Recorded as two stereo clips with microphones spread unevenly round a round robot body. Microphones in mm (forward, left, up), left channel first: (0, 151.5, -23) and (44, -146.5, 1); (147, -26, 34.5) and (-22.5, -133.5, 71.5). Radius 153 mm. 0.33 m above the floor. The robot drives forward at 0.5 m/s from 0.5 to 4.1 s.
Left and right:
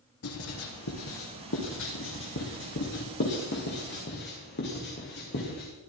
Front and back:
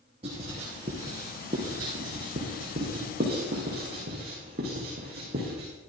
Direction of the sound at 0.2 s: 145° left.